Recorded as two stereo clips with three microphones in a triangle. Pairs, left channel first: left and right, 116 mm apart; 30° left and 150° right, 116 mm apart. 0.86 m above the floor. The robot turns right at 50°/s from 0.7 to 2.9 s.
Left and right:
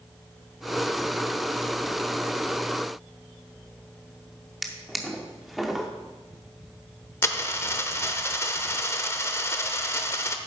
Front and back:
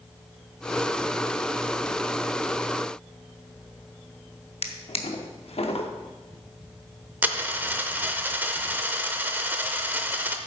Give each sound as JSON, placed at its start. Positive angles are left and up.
{"t": 4.6, "sound": "a drawer", "azimuth_deg": 0, "distance_m": 0.8}
{"t": 7.2, "sound": "a dropped coin", "azimuth_deg": 145, "distance_m": 0.6}